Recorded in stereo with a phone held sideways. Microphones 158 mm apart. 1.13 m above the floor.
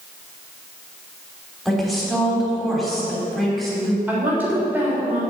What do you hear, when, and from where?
1.6 s a woman speaking: centre (ahead or behind), 3.5 m
4.1 s a woman speaking: 15° right (ahead or behind), 3.5 m